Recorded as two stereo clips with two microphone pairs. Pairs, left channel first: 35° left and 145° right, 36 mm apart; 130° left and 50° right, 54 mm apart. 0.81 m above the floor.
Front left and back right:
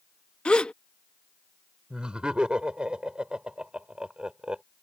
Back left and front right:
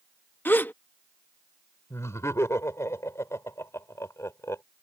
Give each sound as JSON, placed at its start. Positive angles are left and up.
{"t": 0.5, "sound": "a gasp", "azimuth_deg": 90}
{"t": 1.9, "sound": "laughter", "azimuth_deg": 155}